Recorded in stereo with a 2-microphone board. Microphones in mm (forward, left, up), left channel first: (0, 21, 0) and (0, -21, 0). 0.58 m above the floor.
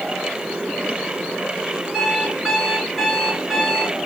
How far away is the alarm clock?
About 3.5 m.